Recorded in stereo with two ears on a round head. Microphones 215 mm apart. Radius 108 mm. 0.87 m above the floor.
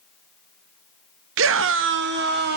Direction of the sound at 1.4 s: 60° right (ahead or behind).